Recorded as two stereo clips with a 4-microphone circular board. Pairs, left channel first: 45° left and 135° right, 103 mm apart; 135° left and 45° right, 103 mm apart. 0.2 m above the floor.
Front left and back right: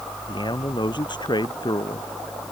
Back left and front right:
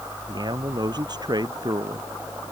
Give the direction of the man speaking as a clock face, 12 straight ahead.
12 o'clock.